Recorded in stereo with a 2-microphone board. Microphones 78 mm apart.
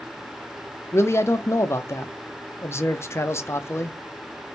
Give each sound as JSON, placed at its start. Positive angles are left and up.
{"t": 0.9, "sound": "a man speaking", "side_deg": 35, "distance_m": 0.5}